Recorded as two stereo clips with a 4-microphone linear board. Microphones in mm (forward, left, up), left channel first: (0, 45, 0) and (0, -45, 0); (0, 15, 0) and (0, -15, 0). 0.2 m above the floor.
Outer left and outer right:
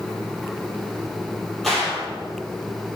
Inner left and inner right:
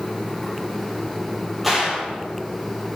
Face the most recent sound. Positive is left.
turn(degrees=0)  # may be behind; listen again after turning